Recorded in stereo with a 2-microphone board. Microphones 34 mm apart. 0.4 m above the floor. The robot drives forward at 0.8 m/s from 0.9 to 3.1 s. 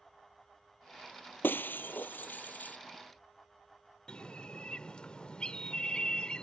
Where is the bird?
30° left (ahead or behind).